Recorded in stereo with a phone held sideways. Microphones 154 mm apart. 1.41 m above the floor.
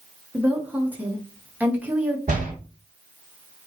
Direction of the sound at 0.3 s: 10° right (ahead or behind).